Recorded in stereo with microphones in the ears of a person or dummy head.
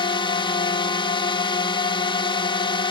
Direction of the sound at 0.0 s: 25° left (ahead or behind).